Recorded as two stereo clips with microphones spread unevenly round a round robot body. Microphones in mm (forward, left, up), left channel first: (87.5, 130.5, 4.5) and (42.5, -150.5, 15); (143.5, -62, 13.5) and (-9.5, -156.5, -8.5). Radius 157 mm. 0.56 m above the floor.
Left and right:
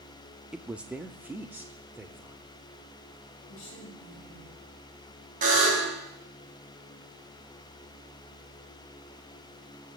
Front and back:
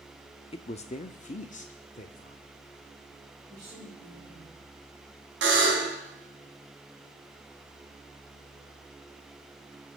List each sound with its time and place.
0.5 s a woman speaking: 10° right, 0.7 m; by 2.4 s 15° right, 1.5 m
3.5 s a woman speaking: 135° left, 9.5 m
5.4 s a buzzer: 165° right, 4.5 m